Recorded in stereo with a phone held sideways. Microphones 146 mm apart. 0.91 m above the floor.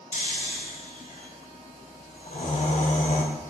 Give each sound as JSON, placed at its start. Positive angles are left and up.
{"t": 0.1, "sound": "snoring", "side_deg": 55, "distance_m": 0.6}